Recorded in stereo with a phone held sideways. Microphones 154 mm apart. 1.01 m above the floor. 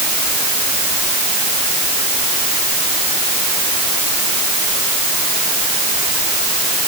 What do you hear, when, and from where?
Only background noise.